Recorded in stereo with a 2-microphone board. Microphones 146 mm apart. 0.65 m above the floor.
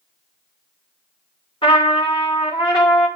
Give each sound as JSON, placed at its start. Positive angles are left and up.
{"t": 1.6, "sound": "a trumpet", "side_deg": 35, "distance_m": 2.5}